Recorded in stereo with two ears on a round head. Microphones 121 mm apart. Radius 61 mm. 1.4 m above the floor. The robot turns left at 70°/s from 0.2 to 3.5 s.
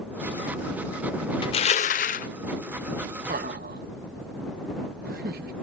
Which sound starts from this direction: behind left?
Crushing, at 1.4 s.